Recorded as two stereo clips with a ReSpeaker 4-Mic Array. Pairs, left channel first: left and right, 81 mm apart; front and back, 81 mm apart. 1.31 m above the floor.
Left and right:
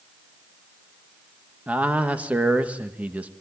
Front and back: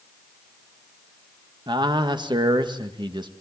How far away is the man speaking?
About 1.9 m.